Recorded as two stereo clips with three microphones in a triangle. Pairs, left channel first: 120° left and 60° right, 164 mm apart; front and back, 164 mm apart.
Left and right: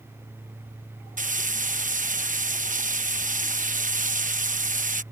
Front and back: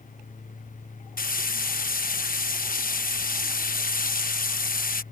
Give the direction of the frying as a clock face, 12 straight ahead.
1 o'clock.